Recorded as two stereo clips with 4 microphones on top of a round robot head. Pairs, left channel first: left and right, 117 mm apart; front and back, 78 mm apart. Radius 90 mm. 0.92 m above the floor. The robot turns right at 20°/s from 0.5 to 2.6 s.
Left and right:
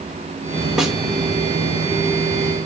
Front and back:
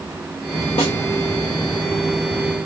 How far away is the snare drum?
About 1.3 m.